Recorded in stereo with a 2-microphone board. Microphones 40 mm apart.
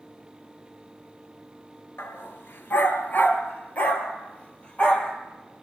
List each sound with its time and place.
2.0 s a dog barking: 65° left (ahead or behind), 2 m; by 5.1 s 20° left (ahead or behind), 3.5 m